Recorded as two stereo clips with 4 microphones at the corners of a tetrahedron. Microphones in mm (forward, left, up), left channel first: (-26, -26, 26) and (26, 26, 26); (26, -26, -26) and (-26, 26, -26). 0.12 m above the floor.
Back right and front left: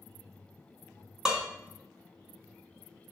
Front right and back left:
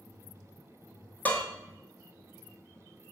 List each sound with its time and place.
1.2 s dishes clattering: 30° right, 0.8 m